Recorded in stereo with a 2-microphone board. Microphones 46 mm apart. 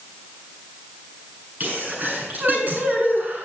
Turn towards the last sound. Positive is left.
turn(degrees=-35)  # may be behind; listen again after turning